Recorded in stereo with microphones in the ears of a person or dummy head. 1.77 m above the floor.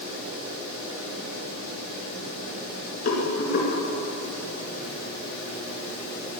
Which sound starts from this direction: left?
A rattle, at 3.0 s.